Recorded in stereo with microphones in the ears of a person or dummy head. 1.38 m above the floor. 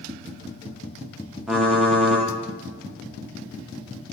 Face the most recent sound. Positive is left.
turn(degrees=-5)  # may be behind; listen again after turning